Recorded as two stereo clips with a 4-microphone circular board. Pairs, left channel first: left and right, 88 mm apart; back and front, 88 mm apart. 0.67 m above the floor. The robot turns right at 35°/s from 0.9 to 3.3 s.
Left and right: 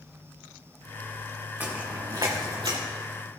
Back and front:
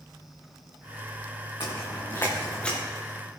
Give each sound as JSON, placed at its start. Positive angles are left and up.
{"t": 1.6, "sound": "footsteps", "azimuth_deg": -160, "distance_m": 3.0}